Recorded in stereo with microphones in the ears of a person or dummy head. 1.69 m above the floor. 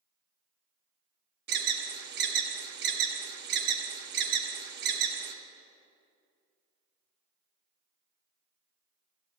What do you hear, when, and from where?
1.5 s an alarm: 50° right (ahead or behind), 0.9 m